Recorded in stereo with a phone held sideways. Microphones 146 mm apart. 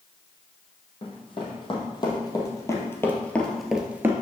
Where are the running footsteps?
40° left (ahead or behind), 2.5 m; by 4.1 s 15° right (ahead or behind), 1.0 m.